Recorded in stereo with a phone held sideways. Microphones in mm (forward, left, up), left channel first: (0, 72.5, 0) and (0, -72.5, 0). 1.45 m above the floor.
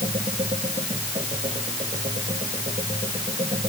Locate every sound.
0.0 s a machine running: 50° right (ahead or behind)